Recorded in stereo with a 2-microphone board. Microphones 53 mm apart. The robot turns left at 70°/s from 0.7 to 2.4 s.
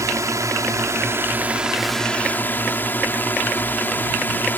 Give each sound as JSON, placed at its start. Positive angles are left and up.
{"t": 0.0, "sound": "a drone", "azimuth_deg": -100}